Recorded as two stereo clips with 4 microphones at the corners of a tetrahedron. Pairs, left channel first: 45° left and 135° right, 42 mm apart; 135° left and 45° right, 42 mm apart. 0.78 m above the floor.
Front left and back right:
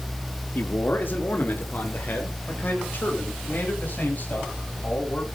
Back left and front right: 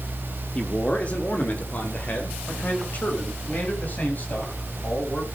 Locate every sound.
0.6 s a man speaking: 75° left, 1.8 m; by 5.3 s 95° left, 7 m